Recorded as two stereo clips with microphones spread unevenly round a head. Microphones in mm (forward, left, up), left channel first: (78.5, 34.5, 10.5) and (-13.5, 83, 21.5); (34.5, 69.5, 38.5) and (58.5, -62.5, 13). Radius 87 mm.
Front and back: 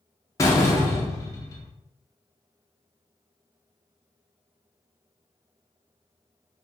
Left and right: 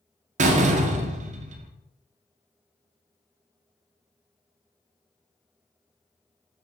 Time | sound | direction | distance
0.4 | a door slam | 90° right | 0.5 m